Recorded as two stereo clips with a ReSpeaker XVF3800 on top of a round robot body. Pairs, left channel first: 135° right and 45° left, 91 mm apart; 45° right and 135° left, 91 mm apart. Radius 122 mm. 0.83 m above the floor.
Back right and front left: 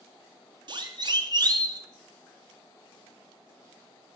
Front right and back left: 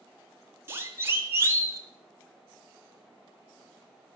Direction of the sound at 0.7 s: 75° left.